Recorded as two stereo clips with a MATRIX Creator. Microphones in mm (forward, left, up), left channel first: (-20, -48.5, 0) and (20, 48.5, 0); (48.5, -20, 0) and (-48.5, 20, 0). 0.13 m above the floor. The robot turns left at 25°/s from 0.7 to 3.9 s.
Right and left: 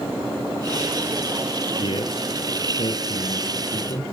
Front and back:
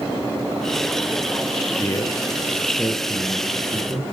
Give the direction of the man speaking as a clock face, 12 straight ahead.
3 o'clock.